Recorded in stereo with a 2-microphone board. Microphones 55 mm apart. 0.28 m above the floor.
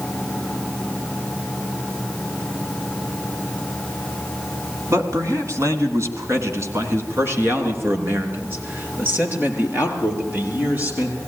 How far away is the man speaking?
About 2.5 m.